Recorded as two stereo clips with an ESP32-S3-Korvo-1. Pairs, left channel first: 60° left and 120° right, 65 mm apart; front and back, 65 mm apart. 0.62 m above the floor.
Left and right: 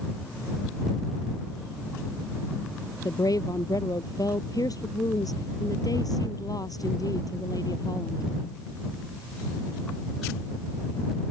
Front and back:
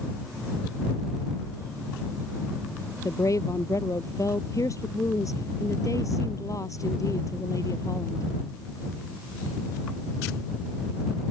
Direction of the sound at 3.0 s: 35° left.